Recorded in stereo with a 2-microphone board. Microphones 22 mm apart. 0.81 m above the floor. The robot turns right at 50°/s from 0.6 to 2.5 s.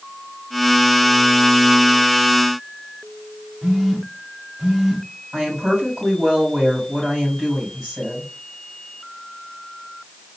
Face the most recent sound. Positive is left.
turn(degrees=-40)  # may be behind; listen again after turning